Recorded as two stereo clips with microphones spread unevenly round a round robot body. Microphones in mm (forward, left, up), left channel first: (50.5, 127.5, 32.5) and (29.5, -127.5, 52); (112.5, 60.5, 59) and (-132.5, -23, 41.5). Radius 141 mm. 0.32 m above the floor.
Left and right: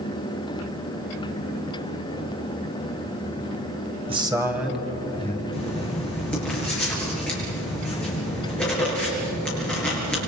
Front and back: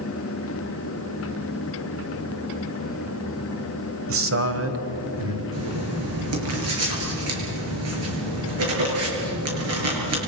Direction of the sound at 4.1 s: 165° right.